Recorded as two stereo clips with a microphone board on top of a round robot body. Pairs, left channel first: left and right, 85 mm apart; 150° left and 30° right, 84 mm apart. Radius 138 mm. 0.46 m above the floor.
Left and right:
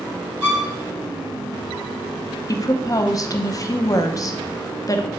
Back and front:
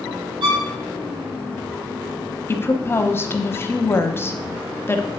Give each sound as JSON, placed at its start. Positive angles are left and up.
{"t": 0.4, "sound": "a violin", "azimuth_deg": -25, "distance_m": 3.5}
{"t": 2.5, "sound": "a woman speaking", "azimuth_deg": 100, "distance_m": 0.9}